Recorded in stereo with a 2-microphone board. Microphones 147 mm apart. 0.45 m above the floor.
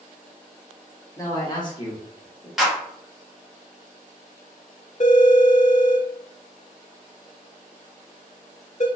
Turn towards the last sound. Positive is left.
turn(degrees=55)  # may be behind; listen again after turning